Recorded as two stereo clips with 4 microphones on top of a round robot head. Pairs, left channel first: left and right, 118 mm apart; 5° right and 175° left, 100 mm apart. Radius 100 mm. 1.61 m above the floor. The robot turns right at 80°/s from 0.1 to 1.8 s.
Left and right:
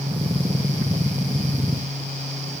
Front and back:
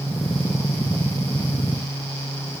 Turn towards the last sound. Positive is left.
No sound to turn to.